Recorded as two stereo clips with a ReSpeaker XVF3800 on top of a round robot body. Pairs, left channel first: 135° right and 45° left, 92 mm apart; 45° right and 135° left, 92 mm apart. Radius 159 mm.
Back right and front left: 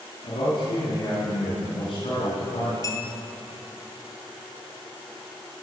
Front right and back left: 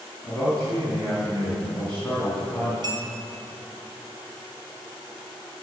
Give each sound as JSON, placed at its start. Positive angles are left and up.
{"t": 0.2, "sound": "a man speaking", "azimuth_deg": -120, "distance_m": 4.0}
{"t": 2.8, "sound": "a clink", "azimuth_deg": 175, "distance_m": 3.0}